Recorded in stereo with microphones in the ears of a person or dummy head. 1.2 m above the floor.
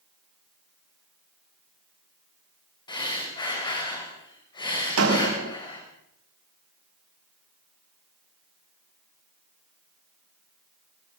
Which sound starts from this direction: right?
A door slam, at 5.0 s.